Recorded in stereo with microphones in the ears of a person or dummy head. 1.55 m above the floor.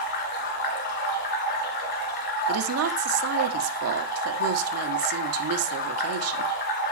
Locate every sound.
0.0 s running water: 55° left (ahead or behind), 2.5 m
2.5 s a woman speaking: 85° right, 1.6 m